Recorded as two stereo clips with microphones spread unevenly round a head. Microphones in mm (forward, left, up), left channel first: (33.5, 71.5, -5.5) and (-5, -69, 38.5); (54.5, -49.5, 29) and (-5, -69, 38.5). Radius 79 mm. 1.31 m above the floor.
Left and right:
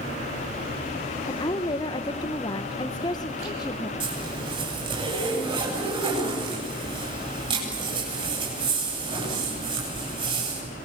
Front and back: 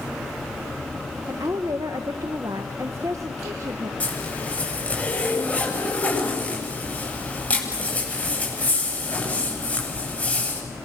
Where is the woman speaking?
135° left, 1.0 m.